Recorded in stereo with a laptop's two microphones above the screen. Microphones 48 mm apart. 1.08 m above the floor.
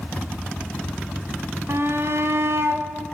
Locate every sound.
1.7 s a shout: 60° right (ahead or behind), 1.3 m